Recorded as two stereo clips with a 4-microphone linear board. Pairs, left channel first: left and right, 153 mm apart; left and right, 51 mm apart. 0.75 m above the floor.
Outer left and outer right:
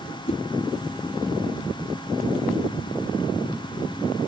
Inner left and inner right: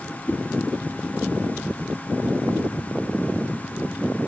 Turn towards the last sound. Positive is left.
turn(degrees=40)  # may be behind; listen again after turning